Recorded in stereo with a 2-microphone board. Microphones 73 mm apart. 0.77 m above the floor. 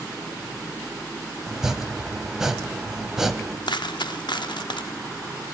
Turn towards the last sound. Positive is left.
turn(degrees=85)